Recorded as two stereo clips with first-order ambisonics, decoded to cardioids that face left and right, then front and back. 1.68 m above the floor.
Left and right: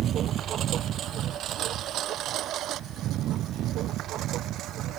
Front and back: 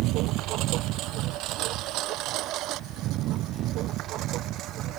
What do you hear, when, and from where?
0.0 s a lawn mower: 145° right; by 5.0 s 135° right